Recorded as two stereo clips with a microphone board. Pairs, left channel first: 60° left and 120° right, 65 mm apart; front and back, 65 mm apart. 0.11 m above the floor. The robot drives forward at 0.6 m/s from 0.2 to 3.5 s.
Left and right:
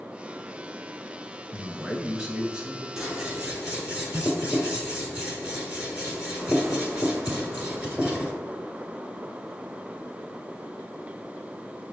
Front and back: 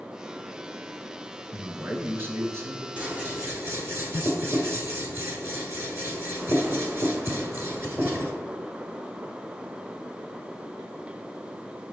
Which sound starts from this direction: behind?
Scissors, at 3.0 s.